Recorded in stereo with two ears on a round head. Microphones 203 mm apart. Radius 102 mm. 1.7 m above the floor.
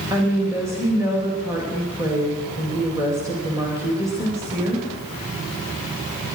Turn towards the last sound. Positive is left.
turn(degrees=-15)  # may be behind; listen again after turning